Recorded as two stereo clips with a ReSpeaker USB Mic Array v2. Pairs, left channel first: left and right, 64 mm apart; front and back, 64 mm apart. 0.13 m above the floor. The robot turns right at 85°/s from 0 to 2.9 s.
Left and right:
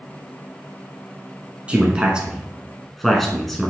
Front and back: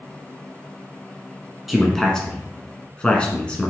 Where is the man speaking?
95° right, 1.0 m; by 3.7 s 10° left, 1.0 m.